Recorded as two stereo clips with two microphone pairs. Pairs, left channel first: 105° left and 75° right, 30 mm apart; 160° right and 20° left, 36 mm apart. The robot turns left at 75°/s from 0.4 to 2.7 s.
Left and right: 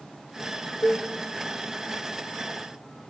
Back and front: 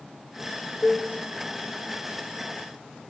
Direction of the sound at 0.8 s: 120° left.